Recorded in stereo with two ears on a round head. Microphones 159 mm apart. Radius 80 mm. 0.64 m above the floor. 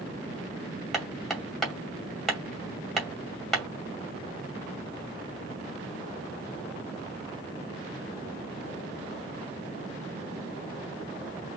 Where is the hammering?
Centre (ahead or behind), 2 m.